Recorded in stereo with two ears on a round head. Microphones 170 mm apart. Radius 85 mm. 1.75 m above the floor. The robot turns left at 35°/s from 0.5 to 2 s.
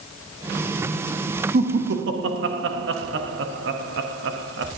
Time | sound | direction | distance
1.5 | laughter | 50° right (ahead or behind) | 0.8 m